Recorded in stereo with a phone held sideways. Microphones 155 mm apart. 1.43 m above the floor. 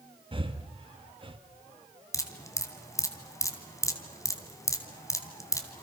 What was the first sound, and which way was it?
Breathing, 35° right (ahead or behind).